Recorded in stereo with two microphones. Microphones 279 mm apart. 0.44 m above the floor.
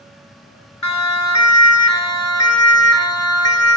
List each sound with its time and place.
0.8 s a siren: 75° left (ahead or behind), 4.5 m; by 3.8 s 60° left (ahead or behind), 5 m